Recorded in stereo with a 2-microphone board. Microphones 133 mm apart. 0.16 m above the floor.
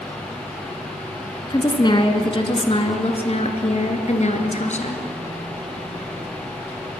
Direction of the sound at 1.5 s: 30° left (ahead or behind).